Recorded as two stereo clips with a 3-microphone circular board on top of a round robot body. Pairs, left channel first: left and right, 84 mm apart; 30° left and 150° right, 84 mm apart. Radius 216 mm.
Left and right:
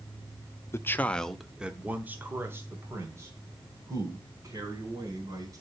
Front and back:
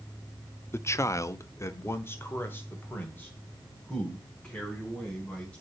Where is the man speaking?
65° left, 1.0 m; by 5.6 s 45° right, 4.5 m.